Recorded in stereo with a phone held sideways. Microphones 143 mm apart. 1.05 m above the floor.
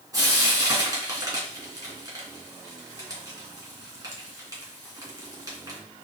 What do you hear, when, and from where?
0.1 s frying: 25° right (ahead or behind), 3 m